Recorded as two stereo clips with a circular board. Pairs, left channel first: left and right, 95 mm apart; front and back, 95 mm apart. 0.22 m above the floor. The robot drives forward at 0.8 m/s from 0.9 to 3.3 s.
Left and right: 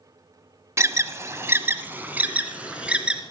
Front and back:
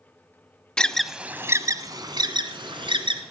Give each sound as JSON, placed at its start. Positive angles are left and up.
{"t": 0.8, "sound": "an alarm", "azimuth_deg": -75, "distance_m": 0.7}